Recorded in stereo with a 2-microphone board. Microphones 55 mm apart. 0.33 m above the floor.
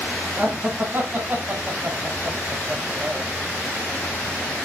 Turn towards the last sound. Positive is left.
turn(degrees=-45)  # may be behind; listen again after turning